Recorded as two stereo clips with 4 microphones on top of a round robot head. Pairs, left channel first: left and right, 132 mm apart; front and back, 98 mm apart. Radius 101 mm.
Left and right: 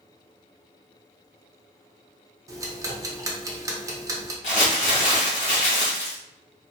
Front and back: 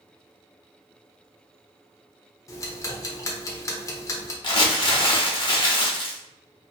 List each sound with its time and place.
2.5 s ticking: 40° right, 0.7 m
4.4 s crumpling: 35° left, 0.9 m